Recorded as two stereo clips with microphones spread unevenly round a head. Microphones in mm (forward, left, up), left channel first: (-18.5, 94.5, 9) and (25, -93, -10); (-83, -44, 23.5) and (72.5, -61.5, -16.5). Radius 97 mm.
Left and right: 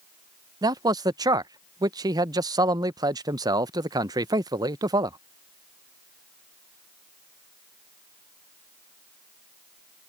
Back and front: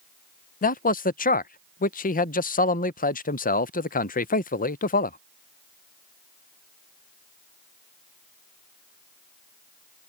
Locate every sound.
0.6 s a man speaking: 145° right